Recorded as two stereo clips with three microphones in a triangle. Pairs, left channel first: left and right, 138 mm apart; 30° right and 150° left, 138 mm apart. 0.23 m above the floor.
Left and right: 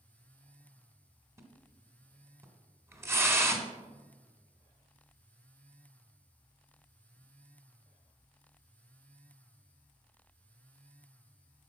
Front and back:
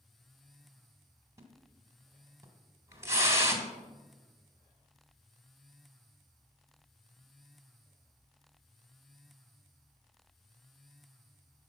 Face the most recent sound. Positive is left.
turn(degrees=-150)